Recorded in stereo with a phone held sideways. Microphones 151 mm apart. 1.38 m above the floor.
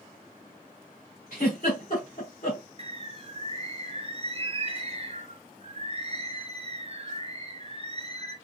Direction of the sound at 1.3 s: 65° left (ahead or behind).